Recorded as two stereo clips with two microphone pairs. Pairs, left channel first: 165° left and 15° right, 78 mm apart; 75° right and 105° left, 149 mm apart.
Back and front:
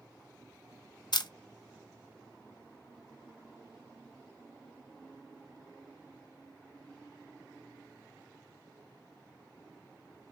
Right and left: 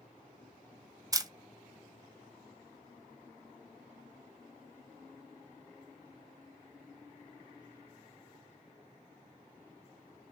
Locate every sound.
1.1 s a camera shutter: 165° left, 0.8 m